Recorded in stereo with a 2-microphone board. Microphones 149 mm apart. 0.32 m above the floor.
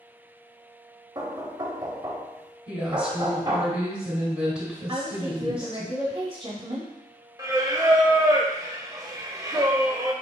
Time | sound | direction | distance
1.1 | knocking | 25° right (ahead or behind) | 0.8 m
2.7 | a woman speaking | 10° right (ahead or behind) | 1.8 m
4.9 | a woman speaking | 35° right (ahead or behind) | 1.3 m
7.4 | singing | 25° right (ahead or behind) | 0.6 m